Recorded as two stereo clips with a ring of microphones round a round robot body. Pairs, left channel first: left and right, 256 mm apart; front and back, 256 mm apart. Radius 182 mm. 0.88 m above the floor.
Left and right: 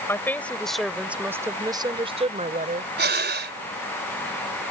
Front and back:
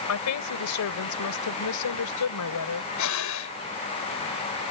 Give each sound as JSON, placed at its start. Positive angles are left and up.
{"t": 0.1, "sound": "a woman speaking", "azimuth_deg": 10}
{"t": 3.0, "sound": "breathing", "azimuth_deg": -40}